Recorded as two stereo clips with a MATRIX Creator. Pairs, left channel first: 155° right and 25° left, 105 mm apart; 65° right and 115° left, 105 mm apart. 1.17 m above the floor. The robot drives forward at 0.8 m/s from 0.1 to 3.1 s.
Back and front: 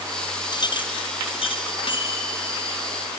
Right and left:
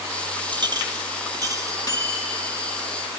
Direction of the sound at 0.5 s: 155° left.